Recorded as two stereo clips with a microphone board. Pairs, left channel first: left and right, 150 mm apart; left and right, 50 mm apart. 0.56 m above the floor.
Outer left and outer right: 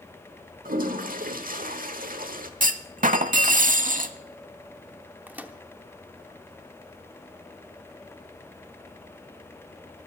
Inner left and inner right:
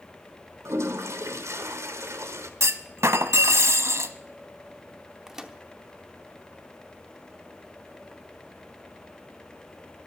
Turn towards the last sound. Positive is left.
turn(degrees=-10)  # may be behind; listen again after turning